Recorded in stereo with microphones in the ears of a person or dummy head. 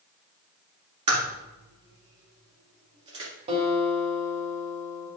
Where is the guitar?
35° right (ahead or behind), 2.5 m.